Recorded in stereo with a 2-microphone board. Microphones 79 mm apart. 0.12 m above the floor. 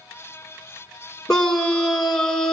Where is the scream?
10° left (ahead or behind), 1.7 m.